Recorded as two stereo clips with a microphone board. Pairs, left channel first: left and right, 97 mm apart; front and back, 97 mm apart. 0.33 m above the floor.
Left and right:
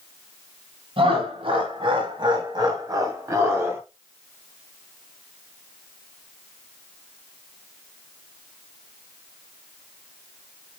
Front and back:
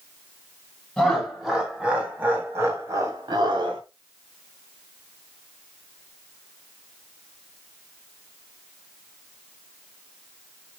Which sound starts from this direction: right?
Laughter, at 1.0 s.